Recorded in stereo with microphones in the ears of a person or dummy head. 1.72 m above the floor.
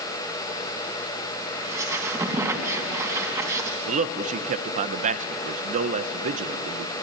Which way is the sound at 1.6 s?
20° right (ahead or behind).